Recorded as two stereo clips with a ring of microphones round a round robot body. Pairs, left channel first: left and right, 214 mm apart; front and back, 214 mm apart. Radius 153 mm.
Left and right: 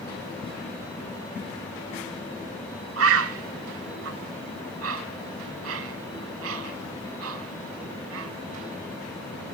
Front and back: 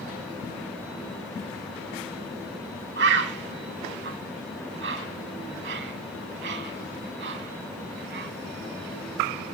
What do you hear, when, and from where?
3.0 s a bird: 125° right, 0.9 m